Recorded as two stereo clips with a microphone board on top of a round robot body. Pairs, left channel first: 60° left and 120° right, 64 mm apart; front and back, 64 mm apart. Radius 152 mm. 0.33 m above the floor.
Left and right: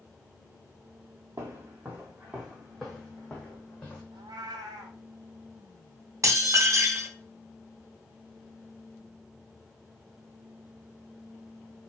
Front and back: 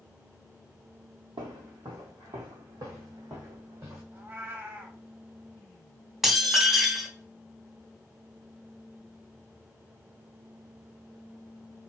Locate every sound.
1.4 s footsteps: 165° right, 0.9 m; by 4.0 s 130° left, 1.6 m
4.1 s a cat meowing: 120° right, 0.7 m
6.2 s dishes clattering: 95° right, 1.2 m